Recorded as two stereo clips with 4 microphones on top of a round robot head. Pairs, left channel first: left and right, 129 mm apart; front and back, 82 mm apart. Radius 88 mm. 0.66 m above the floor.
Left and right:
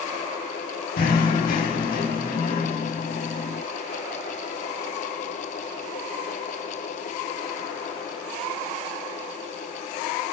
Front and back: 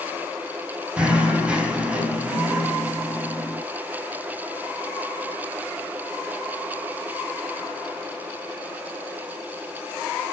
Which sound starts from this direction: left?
Knocking, at 1.0 s.